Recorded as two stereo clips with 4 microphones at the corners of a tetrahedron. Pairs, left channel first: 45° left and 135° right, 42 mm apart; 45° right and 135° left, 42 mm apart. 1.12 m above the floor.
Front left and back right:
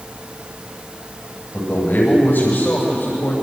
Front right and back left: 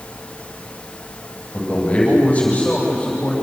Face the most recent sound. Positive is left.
turn(degrees=20)